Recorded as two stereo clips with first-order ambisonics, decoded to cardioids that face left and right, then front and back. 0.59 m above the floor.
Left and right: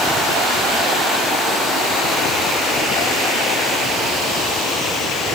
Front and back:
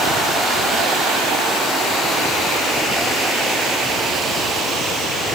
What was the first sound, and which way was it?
Only background noise.